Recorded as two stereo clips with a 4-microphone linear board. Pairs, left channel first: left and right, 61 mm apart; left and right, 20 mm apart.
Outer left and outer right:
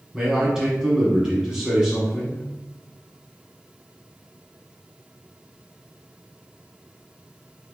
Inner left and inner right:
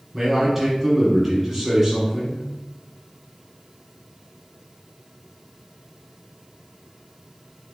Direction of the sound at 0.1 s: 10° right (ahead or behind).